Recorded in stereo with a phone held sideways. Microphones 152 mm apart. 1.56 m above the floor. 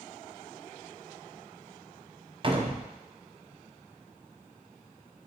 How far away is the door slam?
About 0.6 m.